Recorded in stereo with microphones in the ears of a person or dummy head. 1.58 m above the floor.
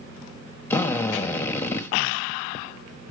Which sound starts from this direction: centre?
A drill, at 0.7 s.